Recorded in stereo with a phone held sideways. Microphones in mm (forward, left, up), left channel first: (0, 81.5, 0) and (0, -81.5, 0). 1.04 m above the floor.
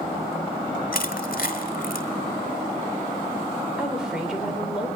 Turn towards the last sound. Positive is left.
turn(degrees=-5)  # may be behind; listen again after turning